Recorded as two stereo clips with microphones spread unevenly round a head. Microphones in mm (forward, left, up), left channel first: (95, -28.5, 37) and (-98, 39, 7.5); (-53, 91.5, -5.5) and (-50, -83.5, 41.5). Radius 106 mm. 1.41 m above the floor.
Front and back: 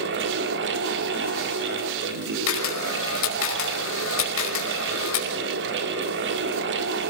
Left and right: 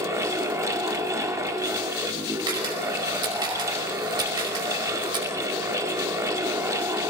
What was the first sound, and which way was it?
A fan, 165° right.